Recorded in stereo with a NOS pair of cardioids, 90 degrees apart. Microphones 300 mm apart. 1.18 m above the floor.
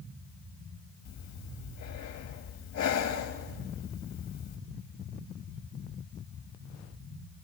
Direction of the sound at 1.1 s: 65° left.